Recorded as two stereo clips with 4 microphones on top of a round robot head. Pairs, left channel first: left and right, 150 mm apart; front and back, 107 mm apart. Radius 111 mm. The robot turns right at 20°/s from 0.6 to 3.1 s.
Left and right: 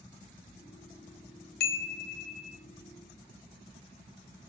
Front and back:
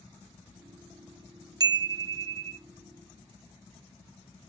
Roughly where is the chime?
Behind left.